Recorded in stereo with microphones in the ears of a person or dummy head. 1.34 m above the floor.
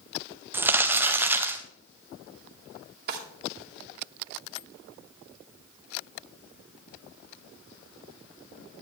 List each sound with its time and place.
0.5 s crumpling: 10° right (ahead or behind), 0.6 m
3.1 s a drawer: 60° right (ahead or behind), 1.7 m